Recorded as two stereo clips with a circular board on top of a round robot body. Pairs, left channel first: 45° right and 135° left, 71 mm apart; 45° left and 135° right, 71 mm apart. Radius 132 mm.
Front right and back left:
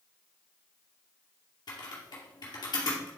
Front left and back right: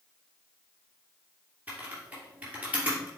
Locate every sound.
1.7 s typing on a keyboard: 65° right, 2.5 m